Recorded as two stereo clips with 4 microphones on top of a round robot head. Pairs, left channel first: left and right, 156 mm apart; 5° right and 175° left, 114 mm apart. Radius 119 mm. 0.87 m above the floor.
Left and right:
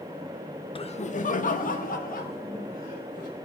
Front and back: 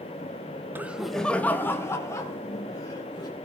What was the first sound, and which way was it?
Laughter, 115° left.